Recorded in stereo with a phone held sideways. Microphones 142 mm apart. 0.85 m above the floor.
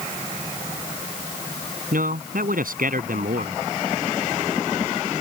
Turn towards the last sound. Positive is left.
turn(degrees=-75)  # may be behind; listen again after turning